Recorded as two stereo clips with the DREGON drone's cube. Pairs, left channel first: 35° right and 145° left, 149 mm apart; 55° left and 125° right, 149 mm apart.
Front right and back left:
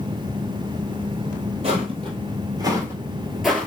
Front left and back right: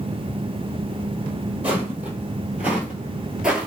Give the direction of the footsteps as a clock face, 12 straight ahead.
7 o'clock.